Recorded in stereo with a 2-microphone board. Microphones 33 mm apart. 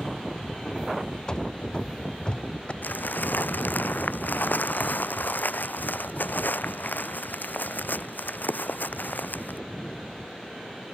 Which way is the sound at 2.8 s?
85° left.